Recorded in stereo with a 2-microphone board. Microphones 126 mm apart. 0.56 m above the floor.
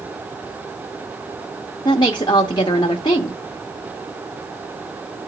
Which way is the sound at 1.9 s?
35° left (ahead or behind).